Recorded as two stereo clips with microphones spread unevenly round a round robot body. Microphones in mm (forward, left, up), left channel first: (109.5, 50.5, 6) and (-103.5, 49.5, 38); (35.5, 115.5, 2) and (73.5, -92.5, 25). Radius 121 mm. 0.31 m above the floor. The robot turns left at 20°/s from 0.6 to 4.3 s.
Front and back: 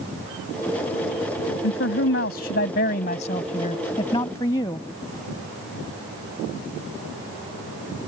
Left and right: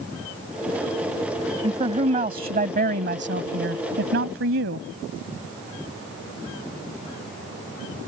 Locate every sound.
1.6 s a man speaking: 20° right; by 4.9 s 70° right